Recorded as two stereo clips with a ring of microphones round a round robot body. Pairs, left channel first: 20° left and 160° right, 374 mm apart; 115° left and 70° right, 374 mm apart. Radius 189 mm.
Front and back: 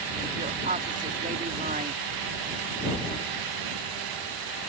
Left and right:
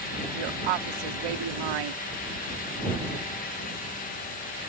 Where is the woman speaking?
90° right.